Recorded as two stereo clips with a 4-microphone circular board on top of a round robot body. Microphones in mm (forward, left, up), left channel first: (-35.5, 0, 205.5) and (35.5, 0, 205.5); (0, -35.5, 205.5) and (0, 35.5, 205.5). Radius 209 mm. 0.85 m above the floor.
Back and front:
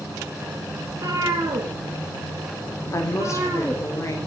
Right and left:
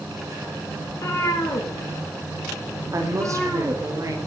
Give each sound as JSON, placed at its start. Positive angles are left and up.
{"t": 0.9, "sound": "a cat meowing", "azimuth_deg": -40, "distance_m": 1.8}
{"t": 2.9, "sound": "a woman speaking", "azimuth_deg": 135, "distance_m": 3.5}